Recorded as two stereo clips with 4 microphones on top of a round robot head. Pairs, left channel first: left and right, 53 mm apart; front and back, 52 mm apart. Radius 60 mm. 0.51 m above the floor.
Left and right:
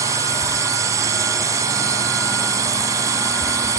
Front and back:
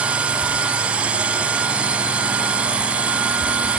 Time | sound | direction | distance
0.0 | a drone | 110° right | ?